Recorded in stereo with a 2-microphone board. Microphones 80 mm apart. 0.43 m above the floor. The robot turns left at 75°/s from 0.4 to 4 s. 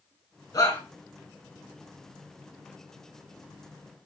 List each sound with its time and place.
0.5 s a shout: 45° left (ahead or behind), 5 m; by 0.8 s 25° left (ahead or behind), 5 m